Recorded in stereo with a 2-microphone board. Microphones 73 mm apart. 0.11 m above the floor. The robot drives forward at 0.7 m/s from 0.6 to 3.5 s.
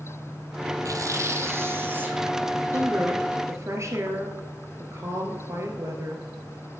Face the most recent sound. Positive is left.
turn(degrees=-40)  # may be behind; listen again after turning